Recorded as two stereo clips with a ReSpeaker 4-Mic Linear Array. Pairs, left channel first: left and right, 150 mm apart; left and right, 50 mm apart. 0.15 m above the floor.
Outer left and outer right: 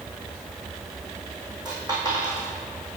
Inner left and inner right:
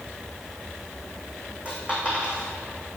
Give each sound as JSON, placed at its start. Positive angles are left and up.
{"t": 1.6, "sound": "a dropped coin", "side_deg": -30, "distance_m": 3.0}